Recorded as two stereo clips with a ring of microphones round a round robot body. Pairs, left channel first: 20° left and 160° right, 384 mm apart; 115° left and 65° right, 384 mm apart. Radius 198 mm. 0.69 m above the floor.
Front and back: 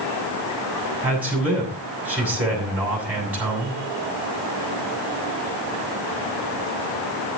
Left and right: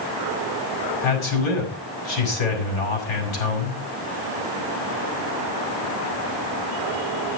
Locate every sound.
1.0 s a man speaking: 115° left, 6.5 m